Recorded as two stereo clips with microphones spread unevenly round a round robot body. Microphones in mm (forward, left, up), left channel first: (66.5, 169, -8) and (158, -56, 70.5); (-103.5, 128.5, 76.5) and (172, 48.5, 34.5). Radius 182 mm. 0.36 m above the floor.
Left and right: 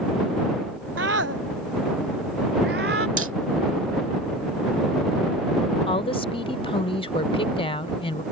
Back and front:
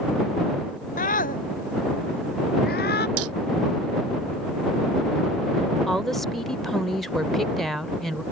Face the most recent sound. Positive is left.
turn(degrees=70)